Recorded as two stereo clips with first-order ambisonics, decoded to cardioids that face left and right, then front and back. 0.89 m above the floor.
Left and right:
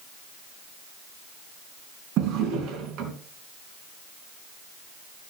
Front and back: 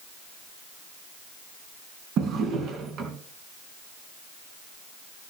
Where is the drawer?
130° right, 3 m.